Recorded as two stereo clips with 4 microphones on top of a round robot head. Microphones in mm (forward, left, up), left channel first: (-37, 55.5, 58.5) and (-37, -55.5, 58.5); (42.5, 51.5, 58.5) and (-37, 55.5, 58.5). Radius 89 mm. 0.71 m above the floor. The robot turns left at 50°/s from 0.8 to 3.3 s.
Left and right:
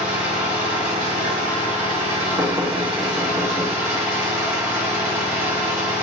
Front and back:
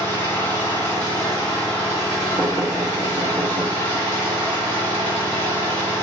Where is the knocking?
135° right, 0.9 m; by 3.7 s 175° left, 0.9 m.